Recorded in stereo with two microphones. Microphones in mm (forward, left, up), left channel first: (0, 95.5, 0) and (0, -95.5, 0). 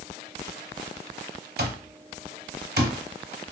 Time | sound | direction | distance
1.6 | an alarm clock | 60° right (ahead or behind) | 0.6 m